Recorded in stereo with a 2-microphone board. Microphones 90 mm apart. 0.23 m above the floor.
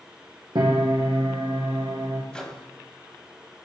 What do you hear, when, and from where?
0.6 s a piano: 65° right (ahead or behind), 1.8 m
2.3 s a microwave: 10° left (ahead or behind), 1.1 m